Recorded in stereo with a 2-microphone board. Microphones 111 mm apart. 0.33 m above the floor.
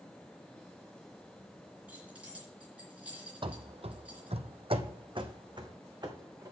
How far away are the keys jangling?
About 3.5 m.